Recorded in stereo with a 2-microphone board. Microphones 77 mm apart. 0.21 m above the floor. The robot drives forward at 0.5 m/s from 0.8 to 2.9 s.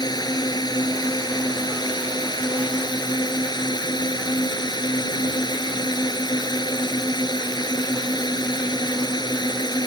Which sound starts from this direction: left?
A drone, at 0.0 s.